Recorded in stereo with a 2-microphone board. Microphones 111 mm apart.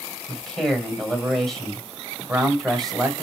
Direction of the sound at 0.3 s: Centre (ahead or behind).